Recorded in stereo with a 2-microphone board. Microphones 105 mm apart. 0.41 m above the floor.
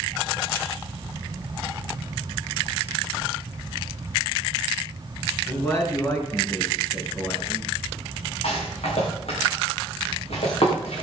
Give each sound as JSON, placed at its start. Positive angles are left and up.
{"t": 5.5, "sound": "a man speaking", "side_deg": 25, "distance_m": 5.0}
{"t": 8.4, "sound": "a rattle", "side_deg": 70, "distance_m": 9.0}